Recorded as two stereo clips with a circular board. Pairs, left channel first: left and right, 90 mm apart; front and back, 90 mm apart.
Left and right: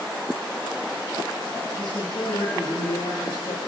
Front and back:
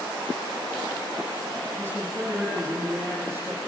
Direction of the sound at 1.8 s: 115° left.